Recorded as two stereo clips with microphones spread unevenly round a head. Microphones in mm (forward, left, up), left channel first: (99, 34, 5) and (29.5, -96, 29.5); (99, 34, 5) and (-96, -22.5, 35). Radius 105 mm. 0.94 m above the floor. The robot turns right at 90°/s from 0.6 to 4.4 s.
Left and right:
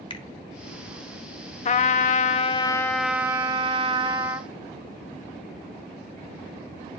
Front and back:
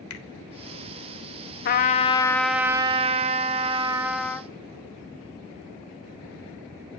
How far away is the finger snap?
About 1.7 m.